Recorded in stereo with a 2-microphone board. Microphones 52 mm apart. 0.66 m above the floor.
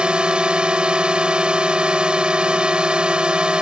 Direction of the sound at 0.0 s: 20° right (ahead or behind).